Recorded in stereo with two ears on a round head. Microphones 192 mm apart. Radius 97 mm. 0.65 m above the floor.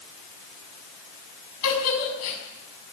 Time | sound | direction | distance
1.6 | a giggle | 80° left | 6.5 m